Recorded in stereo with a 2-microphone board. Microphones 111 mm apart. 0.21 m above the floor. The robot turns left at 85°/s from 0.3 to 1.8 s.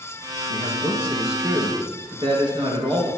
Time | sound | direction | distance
0.5 | a man speaking | 60° left | 3.5 m